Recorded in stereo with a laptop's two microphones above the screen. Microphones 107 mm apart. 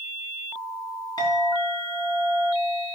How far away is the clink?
About 4 m.